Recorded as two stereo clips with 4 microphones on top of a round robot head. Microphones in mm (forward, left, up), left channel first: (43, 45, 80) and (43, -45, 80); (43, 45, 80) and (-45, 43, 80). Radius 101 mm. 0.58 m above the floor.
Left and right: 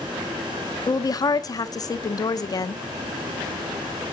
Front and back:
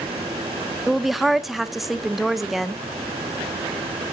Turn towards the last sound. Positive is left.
turn(degrees=95)